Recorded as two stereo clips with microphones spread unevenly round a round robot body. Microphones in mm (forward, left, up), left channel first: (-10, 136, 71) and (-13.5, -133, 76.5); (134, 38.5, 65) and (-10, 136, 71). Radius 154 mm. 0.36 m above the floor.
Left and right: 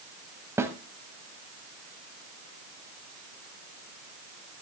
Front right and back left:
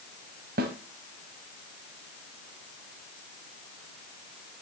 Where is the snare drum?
170° right, 1.0 m.